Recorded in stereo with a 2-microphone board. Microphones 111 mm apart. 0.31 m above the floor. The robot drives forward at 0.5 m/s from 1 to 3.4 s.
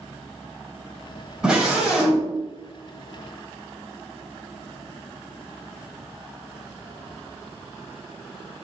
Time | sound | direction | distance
1.4 | a scream | 5° right (ahead or behind) | 1.6 m